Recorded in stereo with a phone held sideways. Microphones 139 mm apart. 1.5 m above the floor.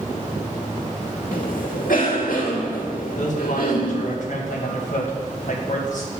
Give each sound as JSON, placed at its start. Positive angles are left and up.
{"t": 1.3, "sound": "a cough", "side_deg": 85, "distance_m": 2.5}
{"t": 3.2, "sound": "a man speaking", "side_deg": 65, "distance_m": 2.0}